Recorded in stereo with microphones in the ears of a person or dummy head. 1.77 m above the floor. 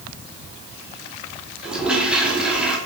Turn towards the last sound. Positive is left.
turn(degrees=-5)  # may be behind; listen again after turning